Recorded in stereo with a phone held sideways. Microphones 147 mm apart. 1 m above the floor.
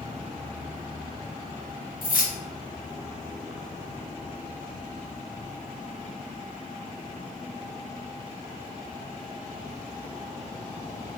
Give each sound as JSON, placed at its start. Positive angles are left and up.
{"t": 2.0, "sound": "keys jangling", "side_deg": 70, "distance_m": 0.5}